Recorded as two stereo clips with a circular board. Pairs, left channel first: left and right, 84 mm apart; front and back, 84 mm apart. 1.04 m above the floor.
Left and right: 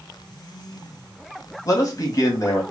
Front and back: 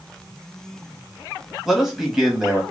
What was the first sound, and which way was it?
A man speaking, 100° left.